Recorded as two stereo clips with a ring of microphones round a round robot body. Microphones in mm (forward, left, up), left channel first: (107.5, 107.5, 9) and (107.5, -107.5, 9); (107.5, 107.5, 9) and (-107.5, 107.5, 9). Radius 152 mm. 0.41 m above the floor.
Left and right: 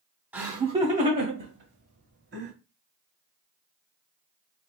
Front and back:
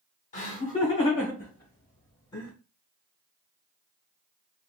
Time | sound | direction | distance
0.3 | laughter | 15° right | 0.9 m